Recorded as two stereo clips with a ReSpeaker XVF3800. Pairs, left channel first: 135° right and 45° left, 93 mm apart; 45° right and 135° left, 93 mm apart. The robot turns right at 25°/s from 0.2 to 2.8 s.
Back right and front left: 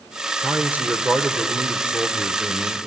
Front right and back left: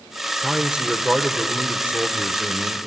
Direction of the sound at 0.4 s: 60° left.